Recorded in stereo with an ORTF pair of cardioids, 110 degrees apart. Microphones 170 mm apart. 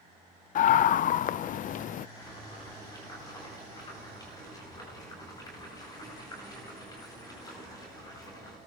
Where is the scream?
50° left, 0.5 m.